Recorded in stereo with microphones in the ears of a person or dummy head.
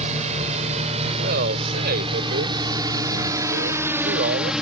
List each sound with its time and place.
0.0 s a drone: 35° right (ahead or behind); by 4.6 s centre (ahead or behind)
1.2 s a man speaking: 50° right (ahead or behind)